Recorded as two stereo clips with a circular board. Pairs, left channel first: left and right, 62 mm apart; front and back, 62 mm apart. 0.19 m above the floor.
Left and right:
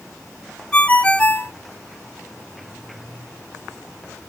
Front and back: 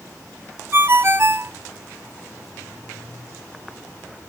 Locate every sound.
0.7 s a ringtone: 155° left, 0.5 m